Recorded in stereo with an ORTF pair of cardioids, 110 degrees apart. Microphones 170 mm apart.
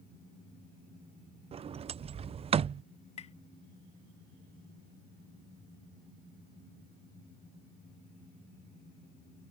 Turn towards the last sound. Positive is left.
turn(degrees=40)